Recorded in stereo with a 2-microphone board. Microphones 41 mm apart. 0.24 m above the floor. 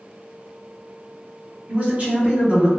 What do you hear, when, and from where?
1.7 s a man speaking: 35° right (ahead or behind), 1.8 m